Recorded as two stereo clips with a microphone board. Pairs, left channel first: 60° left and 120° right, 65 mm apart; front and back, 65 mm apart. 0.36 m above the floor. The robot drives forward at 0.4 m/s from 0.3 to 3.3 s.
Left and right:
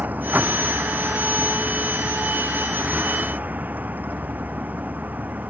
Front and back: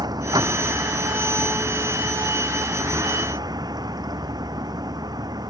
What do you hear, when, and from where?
0.0 s a vehicle: 175° left